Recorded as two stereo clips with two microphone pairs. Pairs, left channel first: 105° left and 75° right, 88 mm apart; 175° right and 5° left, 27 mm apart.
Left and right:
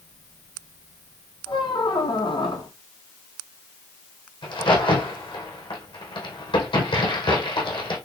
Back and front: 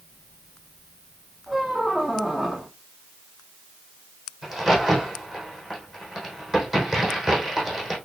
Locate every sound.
1.5 s a squeak: 80° left, 1.5 m
4.4 s a crack: 80° left, 3.5 m